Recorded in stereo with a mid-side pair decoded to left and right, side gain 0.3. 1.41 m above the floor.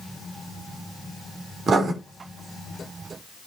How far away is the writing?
About 3.5 m.